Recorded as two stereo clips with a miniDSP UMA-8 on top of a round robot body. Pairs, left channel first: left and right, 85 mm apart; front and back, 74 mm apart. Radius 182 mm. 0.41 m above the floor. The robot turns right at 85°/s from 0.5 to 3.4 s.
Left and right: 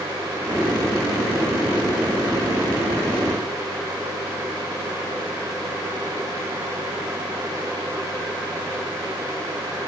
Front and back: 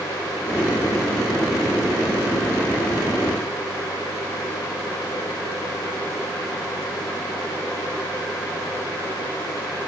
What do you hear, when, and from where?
Only background noise.